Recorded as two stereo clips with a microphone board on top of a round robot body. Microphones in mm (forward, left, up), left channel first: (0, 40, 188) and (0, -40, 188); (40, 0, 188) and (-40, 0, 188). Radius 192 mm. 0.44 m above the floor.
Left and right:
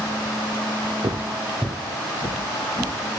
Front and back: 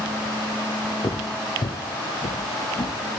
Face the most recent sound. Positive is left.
turn(degrees=35)